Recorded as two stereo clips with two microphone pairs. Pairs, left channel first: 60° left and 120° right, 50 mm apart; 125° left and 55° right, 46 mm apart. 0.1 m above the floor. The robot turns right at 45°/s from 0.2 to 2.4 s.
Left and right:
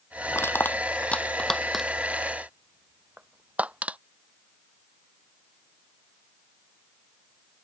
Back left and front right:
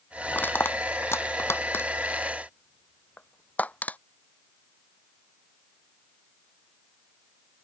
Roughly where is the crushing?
Left.